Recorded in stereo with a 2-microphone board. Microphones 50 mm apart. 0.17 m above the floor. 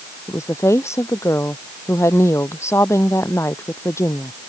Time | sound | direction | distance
0.3 | a woman speaking | 70° left (ahead or behind) | ?